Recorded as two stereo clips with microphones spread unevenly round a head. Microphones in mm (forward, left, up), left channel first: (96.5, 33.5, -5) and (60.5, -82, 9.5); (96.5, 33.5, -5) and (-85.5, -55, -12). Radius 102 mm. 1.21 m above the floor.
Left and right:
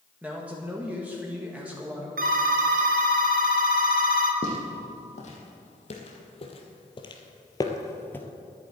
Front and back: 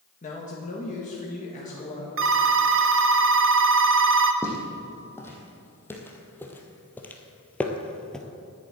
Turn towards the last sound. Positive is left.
turn(degrees=70)